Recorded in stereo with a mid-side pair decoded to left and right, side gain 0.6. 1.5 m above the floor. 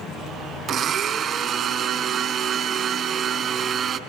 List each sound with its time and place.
0.7 s a blender: 45° right, 4 m